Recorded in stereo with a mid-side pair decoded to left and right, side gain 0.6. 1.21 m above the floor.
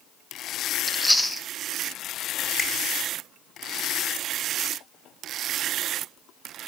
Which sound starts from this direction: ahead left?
A finger snap, at 2.6 s.